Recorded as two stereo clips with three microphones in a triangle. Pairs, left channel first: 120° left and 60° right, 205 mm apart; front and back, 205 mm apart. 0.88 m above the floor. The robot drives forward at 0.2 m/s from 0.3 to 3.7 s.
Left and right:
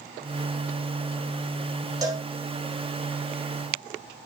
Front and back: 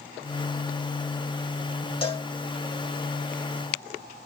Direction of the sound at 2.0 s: 10° right.